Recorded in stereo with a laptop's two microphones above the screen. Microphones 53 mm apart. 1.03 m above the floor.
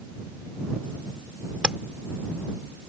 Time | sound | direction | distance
1.6 | tapping | 15° right (ahead or behind) | ?